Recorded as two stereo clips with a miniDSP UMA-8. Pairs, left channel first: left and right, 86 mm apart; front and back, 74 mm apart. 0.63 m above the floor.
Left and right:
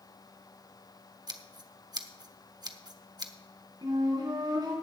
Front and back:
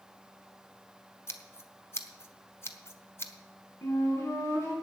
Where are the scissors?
55° right, 1.0 m.